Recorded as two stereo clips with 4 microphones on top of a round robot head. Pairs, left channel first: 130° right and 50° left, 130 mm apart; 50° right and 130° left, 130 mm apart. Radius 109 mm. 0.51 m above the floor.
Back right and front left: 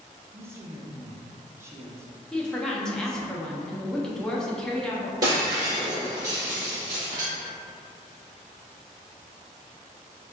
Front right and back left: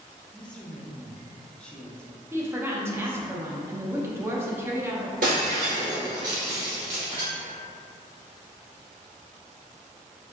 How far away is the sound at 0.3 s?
About 0.7 m.